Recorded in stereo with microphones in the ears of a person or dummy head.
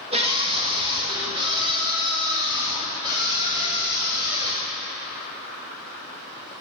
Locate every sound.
0.1 s a scream: 30° right (ahead or behind), 1.8 m; by 4.7 s 20° right (ahead or behind), 4 m